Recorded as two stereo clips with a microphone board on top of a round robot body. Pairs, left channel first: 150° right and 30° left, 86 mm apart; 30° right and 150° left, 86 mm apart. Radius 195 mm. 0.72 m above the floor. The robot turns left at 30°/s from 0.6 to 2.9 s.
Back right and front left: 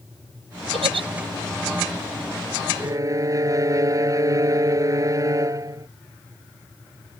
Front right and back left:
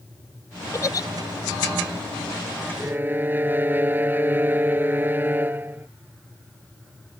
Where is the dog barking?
No dog barking in this recording.